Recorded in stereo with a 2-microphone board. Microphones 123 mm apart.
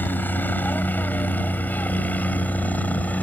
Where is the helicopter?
15° left (ahead or behind); by 3.2 s 10° left (ahead or behind).